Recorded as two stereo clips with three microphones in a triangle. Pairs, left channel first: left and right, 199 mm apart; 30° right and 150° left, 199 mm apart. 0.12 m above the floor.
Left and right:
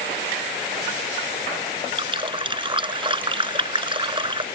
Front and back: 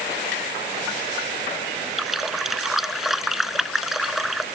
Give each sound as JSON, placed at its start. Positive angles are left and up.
{"t": 2.0, "sound": "a running tap", "azimuth_deg": -120}